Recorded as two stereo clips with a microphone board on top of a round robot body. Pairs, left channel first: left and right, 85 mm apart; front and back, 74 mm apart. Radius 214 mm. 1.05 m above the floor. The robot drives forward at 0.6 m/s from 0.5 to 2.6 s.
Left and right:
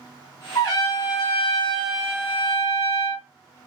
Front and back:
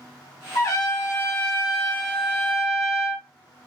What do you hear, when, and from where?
0.6 s a trumpet: 40° left, 1.5 m; by 3.3 s 95° left, 1.0 m